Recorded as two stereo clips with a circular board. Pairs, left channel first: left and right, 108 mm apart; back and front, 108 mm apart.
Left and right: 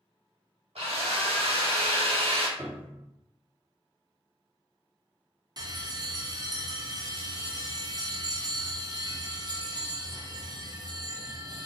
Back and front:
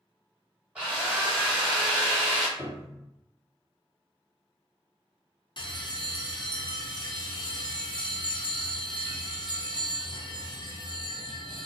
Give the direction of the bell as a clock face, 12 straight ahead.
5 o'clock.